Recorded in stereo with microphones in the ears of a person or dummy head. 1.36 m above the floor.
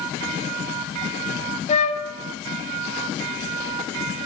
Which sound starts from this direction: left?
A flute, at 1.7 s.